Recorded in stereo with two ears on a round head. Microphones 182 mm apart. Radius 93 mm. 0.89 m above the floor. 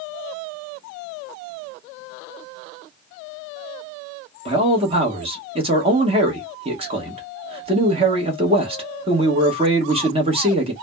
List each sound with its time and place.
4.5 s a man speaking: 30° right (ahead or behind), 1.0 m